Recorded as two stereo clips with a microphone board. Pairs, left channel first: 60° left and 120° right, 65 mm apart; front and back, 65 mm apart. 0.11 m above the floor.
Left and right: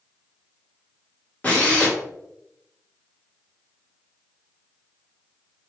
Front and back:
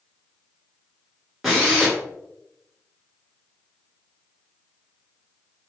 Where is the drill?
100° left, 1.2 m.